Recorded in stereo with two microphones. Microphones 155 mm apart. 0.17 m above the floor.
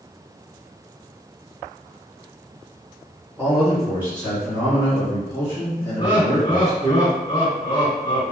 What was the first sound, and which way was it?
A man speaking, centre (ahead or behind).